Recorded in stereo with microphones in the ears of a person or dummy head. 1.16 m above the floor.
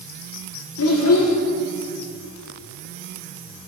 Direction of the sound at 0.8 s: 75° left (ahead or behind).